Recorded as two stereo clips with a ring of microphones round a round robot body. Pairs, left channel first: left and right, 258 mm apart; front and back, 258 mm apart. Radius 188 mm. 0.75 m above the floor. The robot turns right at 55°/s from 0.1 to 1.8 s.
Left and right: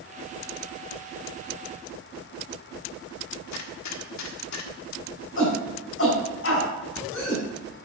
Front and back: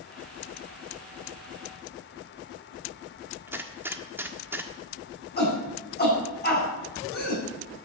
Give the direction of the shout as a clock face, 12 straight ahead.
10 o'clock.